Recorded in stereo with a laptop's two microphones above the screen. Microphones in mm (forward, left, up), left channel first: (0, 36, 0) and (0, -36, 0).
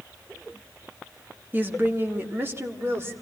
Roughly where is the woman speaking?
Right.